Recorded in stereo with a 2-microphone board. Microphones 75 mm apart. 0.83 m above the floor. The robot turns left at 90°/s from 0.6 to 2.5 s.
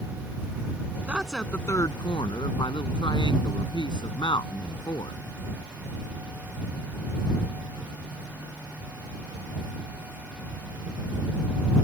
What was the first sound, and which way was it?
A woman speaking, 160° right.